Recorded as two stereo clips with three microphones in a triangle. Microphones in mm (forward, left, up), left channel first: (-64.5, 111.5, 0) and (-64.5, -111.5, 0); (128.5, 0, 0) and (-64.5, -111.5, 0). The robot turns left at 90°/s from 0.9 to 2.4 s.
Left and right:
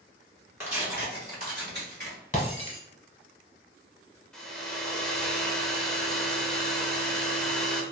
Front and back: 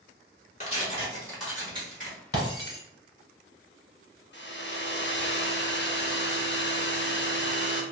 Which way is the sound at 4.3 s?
5° left.